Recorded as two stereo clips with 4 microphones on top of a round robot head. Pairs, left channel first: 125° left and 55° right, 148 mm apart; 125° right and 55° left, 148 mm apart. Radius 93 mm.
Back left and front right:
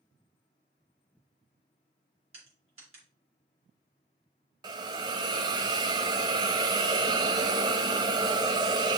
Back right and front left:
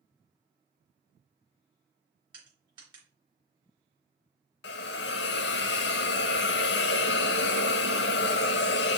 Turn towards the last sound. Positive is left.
turn(degrees=-120)